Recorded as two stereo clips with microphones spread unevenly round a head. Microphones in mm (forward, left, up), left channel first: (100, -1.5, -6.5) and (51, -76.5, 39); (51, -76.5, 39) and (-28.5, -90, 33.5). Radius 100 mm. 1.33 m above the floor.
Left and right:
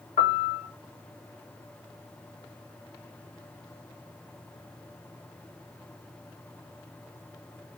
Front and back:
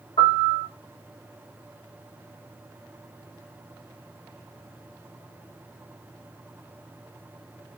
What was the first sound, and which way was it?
A piano, 65° left.